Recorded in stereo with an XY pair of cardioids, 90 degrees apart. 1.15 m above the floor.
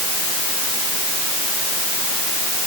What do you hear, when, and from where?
Only background noise.